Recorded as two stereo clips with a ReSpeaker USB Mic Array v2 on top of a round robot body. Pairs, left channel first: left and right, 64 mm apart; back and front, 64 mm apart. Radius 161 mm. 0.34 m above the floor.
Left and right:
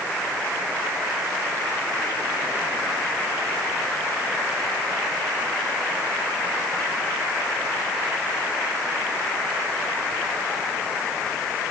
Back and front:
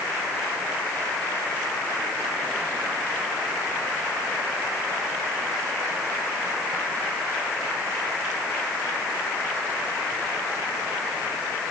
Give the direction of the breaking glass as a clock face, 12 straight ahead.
No breaking glass in this recording.